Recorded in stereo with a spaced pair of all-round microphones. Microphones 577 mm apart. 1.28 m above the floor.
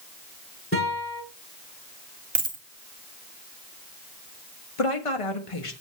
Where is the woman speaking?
65° left (ahead or behind), 1.1 m.